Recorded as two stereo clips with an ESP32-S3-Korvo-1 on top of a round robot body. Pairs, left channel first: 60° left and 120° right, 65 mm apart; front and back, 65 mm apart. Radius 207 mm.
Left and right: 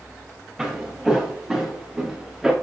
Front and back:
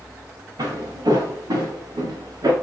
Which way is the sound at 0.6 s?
150° left.